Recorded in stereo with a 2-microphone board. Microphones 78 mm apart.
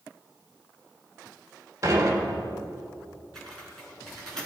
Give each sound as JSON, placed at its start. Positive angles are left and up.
{"t": 1.8, "sound": "dishes clattering", "side_deg": -40, "distance_m": 3.5}
{"t": 3.4, "sound": "typing on a keyboard", "side_deg": 5, "distance_m": 6.0}